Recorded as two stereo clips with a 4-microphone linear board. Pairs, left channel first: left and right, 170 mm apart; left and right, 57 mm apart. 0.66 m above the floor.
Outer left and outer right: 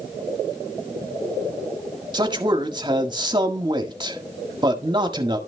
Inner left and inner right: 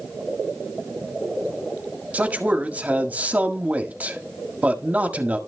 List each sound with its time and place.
2.1 s a man speaking: 30° right (ahead or behind), 1.7 m